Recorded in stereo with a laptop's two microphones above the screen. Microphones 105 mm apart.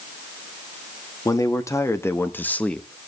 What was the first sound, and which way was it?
A man speaking, 35° left (ahead or behind).